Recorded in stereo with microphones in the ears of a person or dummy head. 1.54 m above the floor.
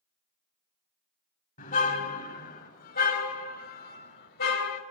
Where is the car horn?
45° left (ahead or behind), 4.5 m; by 4.8 s 60° left (ahead or behind), 3.5 m.